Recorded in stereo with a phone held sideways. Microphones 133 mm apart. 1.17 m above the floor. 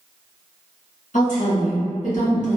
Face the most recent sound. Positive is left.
turn(degrees=70)  # may be behind; listen again after turning